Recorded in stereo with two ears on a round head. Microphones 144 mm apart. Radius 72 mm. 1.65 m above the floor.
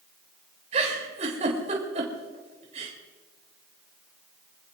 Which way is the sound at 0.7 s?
40° right (ahead or behind).